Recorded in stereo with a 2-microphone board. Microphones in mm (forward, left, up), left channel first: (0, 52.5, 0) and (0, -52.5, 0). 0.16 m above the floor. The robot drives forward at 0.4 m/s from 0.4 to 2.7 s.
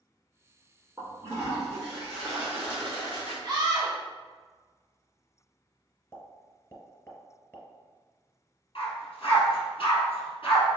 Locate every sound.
1.0 s a toilet flushing: 30° right (ahead or behind), 1.9 m; by 3.3 s 25° right (ahead or behind), 2.5 m
3.4 s a scream: 45° right (ahead or behind), 1.7 m
6.1 s a pop: 25° left (ahead or behind), 0.8 m
8.8 s a dog barking: 65° left (ahead or behind), 1.4 m